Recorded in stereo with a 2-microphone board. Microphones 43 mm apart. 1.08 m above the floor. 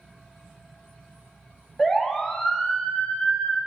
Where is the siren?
10° left (ahead or behind), 3.5 m; by 3.6 s 30° left (ahead or behind), 4.5 m.